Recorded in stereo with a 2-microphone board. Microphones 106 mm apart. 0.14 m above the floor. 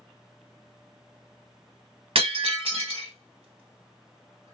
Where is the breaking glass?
60° right (ahead or behind), 1.5 m.